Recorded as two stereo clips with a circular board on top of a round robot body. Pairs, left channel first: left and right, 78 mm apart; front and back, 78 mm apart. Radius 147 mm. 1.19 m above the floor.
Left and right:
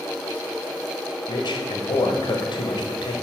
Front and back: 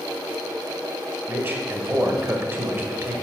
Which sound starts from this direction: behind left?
A man speaking, at 1.3 s.